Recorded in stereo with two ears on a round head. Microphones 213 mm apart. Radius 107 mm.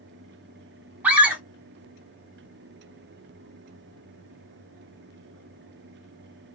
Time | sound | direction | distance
1.0 | a scream | 5° right (ahead or behind) | 2 m